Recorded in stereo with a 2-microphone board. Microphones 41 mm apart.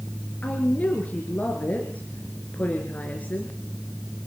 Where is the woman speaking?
40° left (ahead or behind), 4 m.